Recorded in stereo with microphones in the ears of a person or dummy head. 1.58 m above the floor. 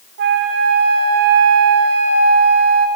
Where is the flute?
55° right (ahead or behind), 2.5 m.